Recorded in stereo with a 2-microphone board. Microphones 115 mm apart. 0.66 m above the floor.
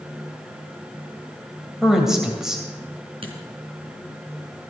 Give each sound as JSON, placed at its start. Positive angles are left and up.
{"t": 1.8, "sound": "a woman speaking", "side_deg": -5, "distance_m": 3.0}
{"t": 3.2, "sound": "a dropped coin", "side_deg": -50, "distance_m": 3.0}